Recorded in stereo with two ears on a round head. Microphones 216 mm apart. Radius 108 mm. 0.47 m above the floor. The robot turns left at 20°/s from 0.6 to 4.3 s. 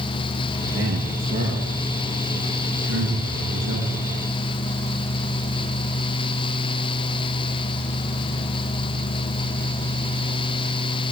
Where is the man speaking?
10° right (ahead or behind), 5.5 m; by 4.1 s 75° right (ahead or behind), 5.5 m.